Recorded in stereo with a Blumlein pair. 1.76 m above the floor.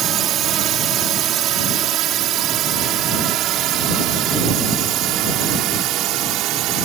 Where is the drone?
30° right; by 6.9 s 35° right.